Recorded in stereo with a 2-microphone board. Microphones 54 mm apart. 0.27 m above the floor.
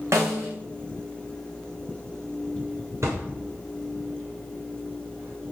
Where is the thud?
55° right (ahead or behind), 7 m.